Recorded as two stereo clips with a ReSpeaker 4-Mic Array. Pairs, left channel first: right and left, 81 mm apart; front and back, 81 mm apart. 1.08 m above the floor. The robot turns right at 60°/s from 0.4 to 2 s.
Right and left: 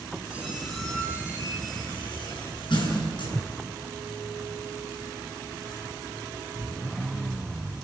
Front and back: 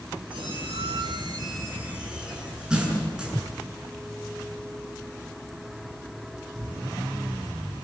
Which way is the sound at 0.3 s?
165° left.